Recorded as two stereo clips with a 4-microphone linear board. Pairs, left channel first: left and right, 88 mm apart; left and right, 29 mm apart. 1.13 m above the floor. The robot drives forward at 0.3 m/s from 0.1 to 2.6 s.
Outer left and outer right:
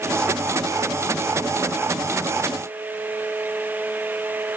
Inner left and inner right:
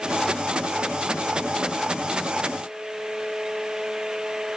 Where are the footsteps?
No footsteps in this recording.